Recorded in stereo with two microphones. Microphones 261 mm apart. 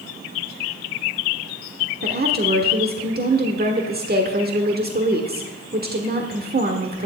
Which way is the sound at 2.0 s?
35° right (ahead or behind).